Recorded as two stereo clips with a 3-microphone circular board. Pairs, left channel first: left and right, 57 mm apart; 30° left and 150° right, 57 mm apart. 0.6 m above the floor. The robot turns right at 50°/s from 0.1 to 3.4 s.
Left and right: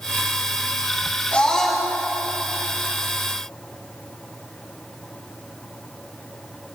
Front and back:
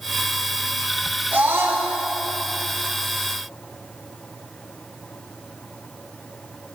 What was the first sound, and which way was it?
A scream, 155° left.